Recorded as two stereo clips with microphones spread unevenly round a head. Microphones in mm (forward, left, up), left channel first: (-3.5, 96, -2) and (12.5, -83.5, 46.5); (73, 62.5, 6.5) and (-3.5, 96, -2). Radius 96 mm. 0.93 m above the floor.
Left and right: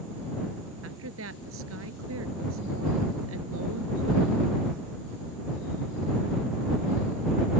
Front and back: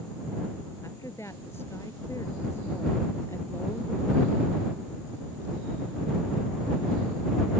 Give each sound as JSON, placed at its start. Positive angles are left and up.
{"t": 0.8, "sound": "a woman speaking", "azimuth_deg": -100}